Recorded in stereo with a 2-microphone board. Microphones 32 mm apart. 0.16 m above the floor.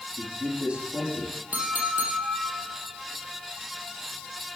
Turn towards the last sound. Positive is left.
turn(degrees=-55)  # may be behind; listen again after turning